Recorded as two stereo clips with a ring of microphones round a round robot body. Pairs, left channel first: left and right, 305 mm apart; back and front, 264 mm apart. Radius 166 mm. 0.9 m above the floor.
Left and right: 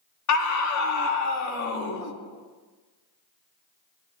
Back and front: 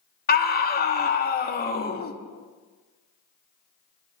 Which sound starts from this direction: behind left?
A scream, at 0.3 s.